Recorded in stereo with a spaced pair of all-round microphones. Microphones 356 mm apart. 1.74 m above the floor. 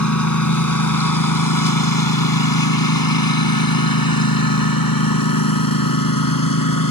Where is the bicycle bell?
I don't hear a bicycle bell.